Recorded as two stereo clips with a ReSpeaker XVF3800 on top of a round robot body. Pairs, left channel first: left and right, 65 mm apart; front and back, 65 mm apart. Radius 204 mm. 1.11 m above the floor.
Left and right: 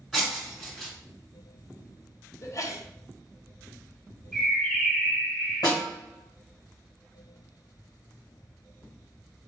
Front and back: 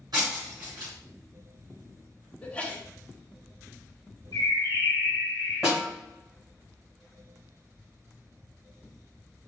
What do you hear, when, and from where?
0.1 s breaking glass: straight behind, 1.4 m
2.4 s a sneeze: 65° left, 0.9 m
4.3 s a bird: straight ahead, 2.0 m
5.6 s a snare drum: 85° left, 1.1 m